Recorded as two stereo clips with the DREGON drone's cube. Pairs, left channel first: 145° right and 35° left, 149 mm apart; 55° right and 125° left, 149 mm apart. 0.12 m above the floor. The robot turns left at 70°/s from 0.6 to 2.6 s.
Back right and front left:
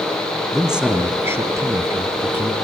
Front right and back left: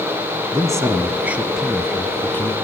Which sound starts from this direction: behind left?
A man speaking, at 0.5 s.